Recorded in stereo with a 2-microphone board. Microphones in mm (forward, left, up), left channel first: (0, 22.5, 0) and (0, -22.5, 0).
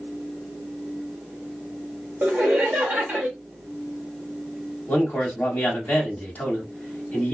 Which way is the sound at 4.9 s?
35° left (ahead or behind).